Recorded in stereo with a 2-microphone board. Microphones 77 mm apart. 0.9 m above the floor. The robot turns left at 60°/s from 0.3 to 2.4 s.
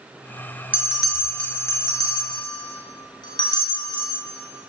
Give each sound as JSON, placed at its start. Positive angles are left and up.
{"t": 0.7, "sound": "a bell", "side_deg": -20, "distance_m": 0.9}